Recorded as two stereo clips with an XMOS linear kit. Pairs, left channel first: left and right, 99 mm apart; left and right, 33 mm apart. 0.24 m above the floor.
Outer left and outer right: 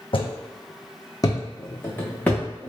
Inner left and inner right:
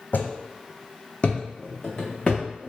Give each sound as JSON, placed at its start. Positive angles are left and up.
{"t": 0.1, "sound": "footsteps", "side_deg": 70, "distance_m": 0.6}